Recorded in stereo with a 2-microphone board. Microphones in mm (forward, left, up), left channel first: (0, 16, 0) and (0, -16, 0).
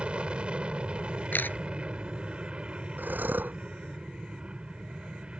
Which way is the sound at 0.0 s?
35° right (ahead or behind).